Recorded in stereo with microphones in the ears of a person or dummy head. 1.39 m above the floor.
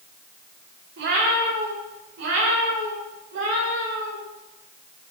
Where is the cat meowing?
50° right (ahead or behind), 1.3 m; by 4.2 s 60° right (ahead or behind), 3 m.